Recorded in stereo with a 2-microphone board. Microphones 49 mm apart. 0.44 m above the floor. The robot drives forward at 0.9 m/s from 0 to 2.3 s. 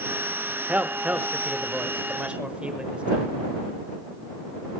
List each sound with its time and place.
0.7 s a man speaking: 35° right (ahead or behind), 1.2 m; by 3.3 s 25° right (ahead or behind), 1.7 m